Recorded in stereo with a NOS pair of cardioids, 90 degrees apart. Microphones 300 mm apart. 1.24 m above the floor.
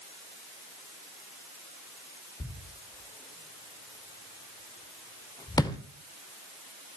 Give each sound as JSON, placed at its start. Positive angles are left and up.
{"t": 2.4, "sound": "a thud", "azimuth_deg": 15, "distance_m": 2.0}